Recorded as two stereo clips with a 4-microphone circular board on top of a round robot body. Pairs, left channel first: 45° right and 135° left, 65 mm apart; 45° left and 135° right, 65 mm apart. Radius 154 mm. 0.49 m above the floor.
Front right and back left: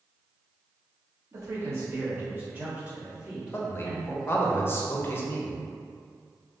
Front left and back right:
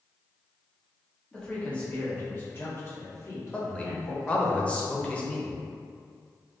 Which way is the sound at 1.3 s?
120° left.